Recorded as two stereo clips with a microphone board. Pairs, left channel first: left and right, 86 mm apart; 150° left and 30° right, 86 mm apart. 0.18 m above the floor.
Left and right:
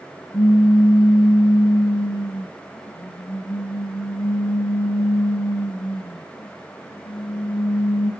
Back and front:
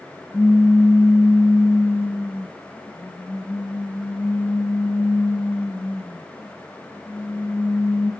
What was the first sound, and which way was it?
A pop, 85° left.